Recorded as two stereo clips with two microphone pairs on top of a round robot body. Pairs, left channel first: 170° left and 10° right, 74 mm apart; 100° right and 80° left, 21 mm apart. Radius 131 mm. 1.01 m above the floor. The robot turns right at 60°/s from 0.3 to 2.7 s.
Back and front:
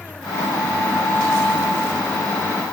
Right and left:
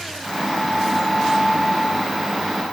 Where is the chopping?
I don't hear chopping.